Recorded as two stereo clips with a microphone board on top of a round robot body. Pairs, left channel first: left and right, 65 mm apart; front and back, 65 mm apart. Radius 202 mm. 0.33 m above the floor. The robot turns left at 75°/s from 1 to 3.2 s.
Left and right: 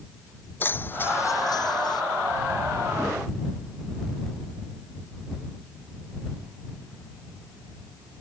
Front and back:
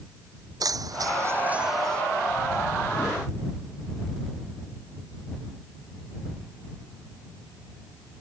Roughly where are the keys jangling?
Behind left.